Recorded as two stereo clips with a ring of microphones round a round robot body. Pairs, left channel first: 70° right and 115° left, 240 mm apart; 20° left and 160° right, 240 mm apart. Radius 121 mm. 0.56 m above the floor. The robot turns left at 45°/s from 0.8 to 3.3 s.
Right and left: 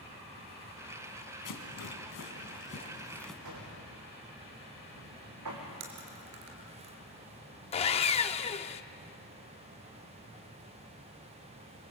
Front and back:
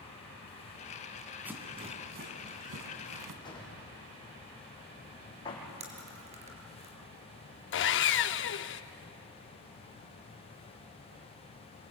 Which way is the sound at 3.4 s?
95° left.